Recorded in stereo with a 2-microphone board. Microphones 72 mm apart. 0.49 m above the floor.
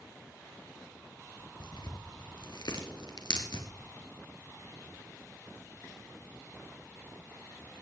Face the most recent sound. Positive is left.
turn(degrees=75)  # may be behind; listen again after turning